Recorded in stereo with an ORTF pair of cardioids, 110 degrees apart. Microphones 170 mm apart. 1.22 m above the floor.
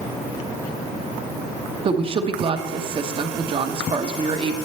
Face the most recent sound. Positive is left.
turn(degrees=-35)